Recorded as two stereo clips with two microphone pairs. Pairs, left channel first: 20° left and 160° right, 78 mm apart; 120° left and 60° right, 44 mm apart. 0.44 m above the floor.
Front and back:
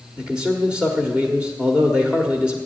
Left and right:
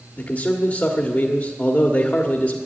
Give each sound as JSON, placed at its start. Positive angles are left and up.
{"t": 0.2, "sound": "a man speaking", "azimuth_deg": 130, "distance_m": 1.3}